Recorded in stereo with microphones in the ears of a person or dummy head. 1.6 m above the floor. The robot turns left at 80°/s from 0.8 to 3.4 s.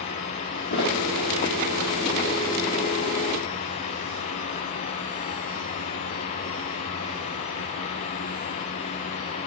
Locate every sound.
0.7 s a thud: 35° left (ahead or behind), 1.0 m